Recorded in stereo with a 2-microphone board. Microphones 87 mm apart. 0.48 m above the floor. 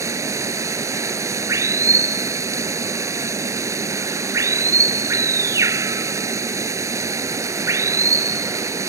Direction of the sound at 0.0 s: 35° right (ahead or behind).